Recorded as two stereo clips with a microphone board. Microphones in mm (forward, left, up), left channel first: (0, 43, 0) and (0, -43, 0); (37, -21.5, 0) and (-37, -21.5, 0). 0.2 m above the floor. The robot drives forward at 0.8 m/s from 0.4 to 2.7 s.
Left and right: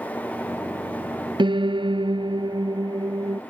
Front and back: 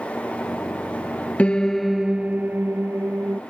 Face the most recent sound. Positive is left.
turn(degrees=-120)